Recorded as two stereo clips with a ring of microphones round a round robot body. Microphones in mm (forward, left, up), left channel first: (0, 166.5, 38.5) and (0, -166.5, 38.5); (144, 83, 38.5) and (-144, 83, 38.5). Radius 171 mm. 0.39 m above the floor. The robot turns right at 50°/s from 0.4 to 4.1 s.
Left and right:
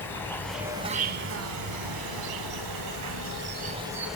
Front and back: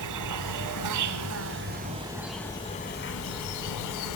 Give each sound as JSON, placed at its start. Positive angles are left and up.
{"t": 0.0, "sound": "an insect", "azimuth_deg": 175, "distance_m": 1.6}